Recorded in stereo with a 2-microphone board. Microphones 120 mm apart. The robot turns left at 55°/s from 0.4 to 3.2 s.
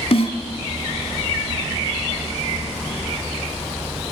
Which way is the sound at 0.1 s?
60° left (ahead or behind).